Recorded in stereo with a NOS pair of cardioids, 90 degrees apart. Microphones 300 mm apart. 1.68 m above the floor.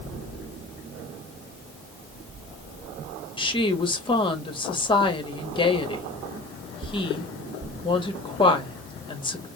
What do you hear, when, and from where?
3.4 s a woman speaking: 15° left, 1.1 m